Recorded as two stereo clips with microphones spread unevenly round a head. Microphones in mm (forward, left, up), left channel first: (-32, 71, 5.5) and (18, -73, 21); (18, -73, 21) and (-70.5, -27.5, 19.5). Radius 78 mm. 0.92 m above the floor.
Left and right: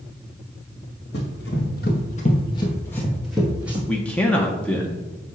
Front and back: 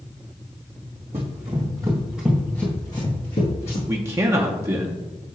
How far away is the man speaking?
About 0.6 m.